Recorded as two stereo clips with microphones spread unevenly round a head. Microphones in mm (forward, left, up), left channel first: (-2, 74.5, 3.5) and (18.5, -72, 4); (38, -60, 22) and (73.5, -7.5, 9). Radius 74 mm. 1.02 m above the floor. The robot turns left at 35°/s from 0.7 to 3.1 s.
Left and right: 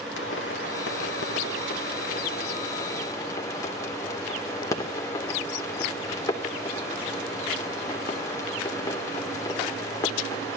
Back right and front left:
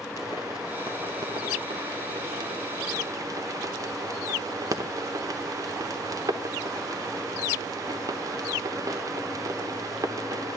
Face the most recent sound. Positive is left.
turn(degrees=30)